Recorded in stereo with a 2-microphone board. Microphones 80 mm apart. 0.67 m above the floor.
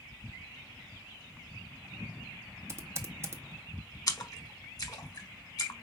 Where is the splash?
50° left (ahead or behind), 0.9 m.